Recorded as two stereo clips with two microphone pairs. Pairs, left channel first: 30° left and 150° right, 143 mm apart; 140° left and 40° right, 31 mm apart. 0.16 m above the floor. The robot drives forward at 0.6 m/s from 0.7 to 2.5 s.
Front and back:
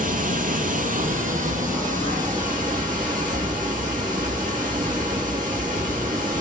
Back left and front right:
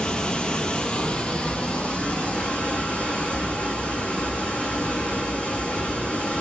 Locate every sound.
0.0 s running water: 165° right, 0.8 m; by 6.4 s 175° right, 1.9 m